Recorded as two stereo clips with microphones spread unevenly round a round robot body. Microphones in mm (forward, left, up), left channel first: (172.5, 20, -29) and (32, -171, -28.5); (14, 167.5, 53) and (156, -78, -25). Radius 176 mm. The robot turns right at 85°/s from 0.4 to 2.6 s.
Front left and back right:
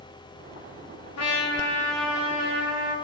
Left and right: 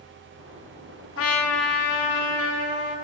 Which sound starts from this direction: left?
A trumpet, at 1.2 s.